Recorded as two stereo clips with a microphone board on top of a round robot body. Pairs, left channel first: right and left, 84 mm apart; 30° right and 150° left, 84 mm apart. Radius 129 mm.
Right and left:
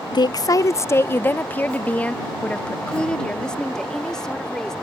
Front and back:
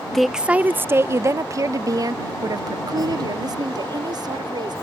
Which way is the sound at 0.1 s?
115° right.